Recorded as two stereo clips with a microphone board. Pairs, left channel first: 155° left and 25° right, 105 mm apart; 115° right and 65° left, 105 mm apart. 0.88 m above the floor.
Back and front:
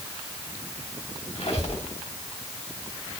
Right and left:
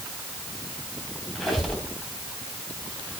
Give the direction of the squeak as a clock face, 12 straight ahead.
7 o'clock.